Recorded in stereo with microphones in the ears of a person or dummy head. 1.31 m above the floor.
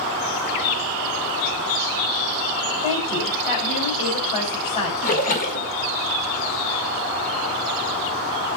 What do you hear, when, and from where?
2.8 s a woman speaking: 45° left (ahead or behind), 4.5 m
5.0 s a splash: 50° left (ahead or behind), 1.8 m